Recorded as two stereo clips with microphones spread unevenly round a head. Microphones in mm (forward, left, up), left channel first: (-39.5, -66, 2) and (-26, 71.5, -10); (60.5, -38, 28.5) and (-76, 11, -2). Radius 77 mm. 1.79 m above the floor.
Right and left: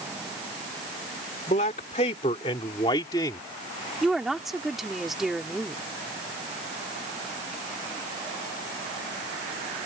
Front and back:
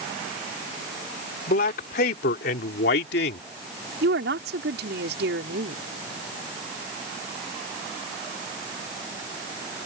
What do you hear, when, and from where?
1.5 s a man speaking: 50° right; by 3.5 s 25° right
4.0 s a woman speaking: 175° left